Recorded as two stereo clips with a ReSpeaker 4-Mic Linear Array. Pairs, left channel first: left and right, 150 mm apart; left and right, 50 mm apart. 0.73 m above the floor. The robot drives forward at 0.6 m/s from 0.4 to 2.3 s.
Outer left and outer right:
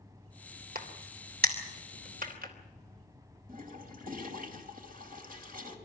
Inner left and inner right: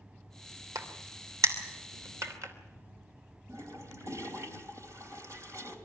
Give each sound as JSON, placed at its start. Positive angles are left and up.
{"t": 0.8, "sound": "a crack", "side_deg": -75, "distance_m": 3.0}
{"t": 3.5, "sound": "a toilet flushing", "side_deg": -65, "distance_m": 2.5}